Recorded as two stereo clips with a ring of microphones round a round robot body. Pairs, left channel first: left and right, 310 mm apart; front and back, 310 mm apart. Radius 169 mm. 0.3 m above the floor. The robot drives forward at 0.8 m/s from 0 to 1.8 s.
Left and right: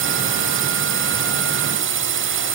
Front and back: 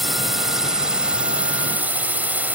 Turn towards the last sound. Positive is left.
turn(degrees=-100)